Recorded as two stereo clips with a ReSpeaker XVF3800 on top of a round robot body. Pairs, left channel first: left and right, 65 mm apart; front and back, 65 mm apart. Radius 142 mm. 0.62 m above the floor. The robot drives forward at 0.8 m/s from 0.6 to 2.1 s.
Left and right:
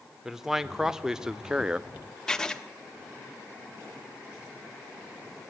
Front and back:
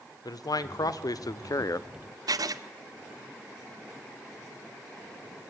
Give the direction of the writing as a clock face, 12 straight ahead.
6 o'clock.